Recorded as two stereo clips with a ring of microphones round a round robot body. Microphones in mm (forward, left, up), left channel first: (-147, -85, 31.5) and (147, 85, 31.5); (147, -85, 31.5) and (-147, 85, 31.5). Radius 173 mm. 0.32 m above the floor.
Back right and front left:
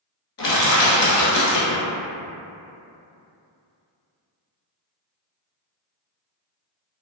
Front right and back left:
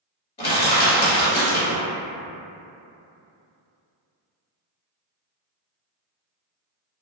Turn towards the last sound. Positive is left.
turn(degrees=-100)